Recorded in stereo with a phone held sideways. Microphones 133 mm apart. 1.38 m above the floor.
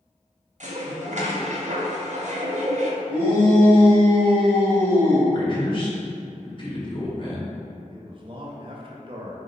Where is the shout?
35° left (ahead or behind), 1.7 m.